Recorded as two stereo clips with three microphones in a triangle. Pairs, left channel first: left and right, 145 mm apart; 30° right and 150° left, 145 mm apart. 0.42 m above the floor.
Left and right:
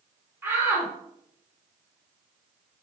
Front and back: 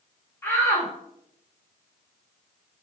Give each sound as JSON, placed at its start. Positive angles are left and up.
{"t": 0.4, "sound": "a shout", "azimuth_deg": -60, "distance_m": 0.8}